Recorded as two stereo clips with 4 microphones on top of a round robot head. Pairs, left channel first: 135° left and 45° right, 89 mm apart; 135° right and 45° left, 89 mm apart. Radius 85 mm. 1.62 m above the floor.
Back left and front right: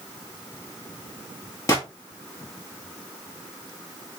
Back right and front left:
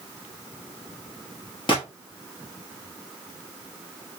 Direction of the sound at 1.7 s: 170° right.